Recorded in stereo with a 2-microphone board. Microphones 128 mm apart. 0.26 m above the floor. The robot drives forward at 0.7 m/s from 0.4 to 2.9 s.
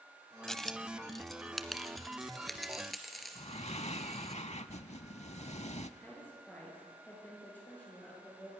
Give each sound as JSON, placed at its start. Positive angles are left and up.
{"t": 0.5, "sound": "a dropped coin", "side_deg": 5, "distance_m": 0.5}
{"t": 3.4, "sound": "breathing", "side_deg": 60, "distance_m": 0.6}
{"t": 6.0, "sound": "a woman speaking", "side_deg": 15, "distance_m": 6.0}